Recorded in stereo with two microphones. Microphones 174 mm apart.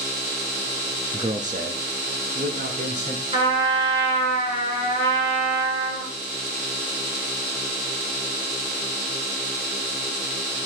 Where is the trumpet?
35° right (ahead or behind), 4 m.